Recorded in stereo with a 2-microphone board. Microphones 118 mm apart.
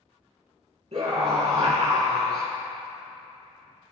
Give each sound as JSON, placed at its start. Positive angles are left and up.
{"t": 0.9, "sound": "a scream", "side_deg": -65, "distance_m": 3.0}